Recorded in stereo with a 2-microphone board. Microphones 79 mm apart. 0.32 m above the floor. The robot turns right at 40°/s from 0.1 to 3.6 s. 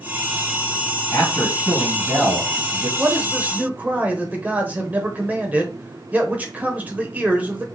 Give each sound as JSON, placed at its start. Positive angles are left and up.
{"t": 1.1, "sound": "a man speaking", "azimuth_deg": 150, "distance_m": 2.5}
{"t": 3.0, "sound": "a man speaking", "side_deg": -20, "distance_m": 0.9}